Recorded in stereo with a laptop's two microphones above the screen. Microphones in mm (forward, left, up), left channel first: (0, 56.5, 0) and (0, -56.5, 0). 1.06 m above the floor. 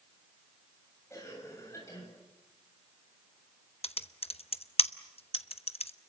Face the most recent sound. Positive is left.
turn(degrees=60)  # may be behind; listen again after turning